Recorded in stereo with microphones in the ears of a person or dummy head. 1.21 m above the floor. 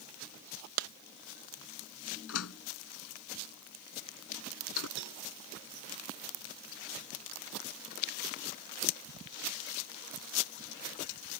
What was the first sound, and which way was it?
A clap, 75° right (ahead or behind).